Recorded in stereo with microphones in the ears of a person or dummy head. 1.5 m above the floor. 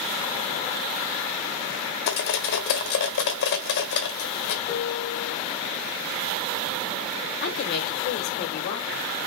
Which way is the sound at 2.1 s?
60° left (ahead or behind).